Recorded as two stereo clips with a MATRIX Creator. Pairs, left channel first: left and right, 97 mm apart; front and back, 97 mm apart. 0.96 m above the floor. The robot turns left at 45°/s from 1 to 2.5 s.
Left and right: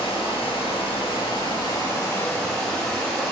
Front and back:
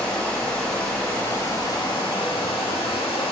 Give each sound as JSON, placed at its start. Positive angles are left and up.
{"t": 0.0, "sound": "running water", "azimuth_deg": 80, "distance_m": 1.0}